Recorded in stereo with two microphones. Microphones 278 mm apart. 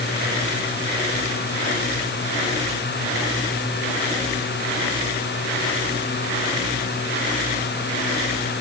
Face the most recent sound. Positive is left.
No sound to turn to.